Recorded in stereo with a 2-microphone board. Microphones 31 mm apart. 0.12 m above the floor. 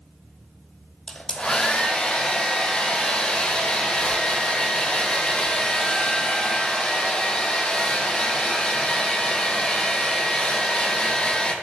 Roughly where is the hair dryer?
Left.